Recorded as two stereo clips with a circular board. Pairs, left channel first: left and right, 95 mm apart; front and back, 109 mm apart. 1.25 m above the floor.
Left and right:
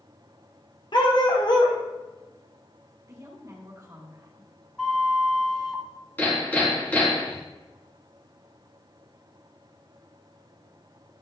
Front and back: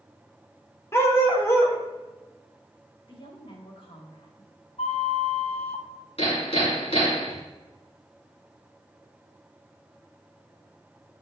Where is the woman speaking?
35° right, 2.5 m.